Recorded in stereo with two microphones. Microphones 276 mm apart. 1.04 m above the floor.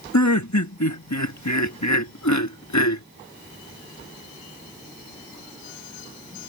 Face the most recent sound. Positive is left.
turn(degrees=85)